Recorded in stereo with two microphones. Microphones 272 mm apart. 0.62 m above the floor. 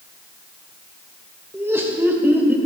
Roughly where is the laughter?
Centre.